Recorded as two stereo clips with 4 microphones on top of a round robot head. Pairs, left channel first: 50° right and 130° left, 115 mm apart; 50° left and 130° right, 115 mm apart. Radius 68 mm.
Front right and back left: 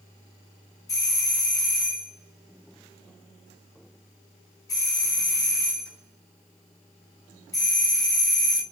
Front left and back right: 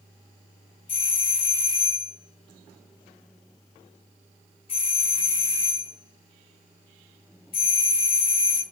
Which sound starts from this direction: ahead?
A doorbell, at 0.9 s.